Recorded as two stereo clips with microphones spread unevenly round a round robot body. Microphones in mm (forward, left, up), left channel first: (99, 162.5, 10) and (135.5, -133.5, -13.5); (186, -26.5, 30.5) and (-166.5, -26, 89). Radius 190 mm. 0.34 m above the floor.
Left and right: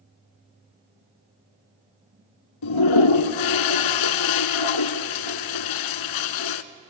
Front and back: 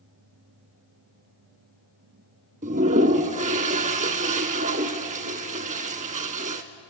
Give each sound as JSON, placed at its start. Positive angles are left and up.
{"t": 2.6, "sound": "a toilet flushing", "azimuth_deg": 110, "distance_m": 0.7}